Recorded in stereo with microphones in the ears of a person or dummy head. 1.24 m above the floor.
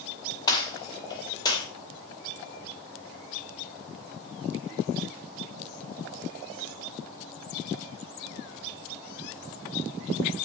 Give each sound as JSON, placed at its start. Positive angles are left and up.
{"t": 0.5, "sound": "a gunshot", "side_deg": 25, "distance_m": 2.5}